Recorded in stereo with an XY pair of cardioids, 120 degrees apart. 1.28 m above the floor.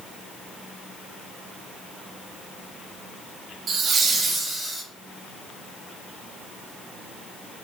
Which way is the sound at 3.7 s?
50° right.